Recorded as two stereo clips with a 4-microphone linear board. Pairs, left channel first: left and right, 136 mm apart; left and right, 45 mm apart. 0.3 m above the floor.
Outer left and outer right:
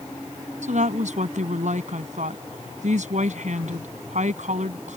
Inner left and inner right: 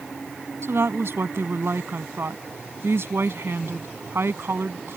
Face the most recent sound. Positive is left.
turn(degrees=-65)  # may be behind; listen again after turning